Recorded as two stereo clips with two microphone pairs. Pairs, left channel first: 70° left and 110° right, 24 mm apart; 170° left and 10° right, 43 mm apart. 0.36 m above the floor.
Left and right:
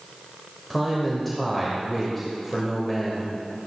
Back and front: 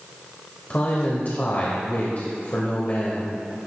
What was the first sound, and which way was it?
A man speaking, 155° left.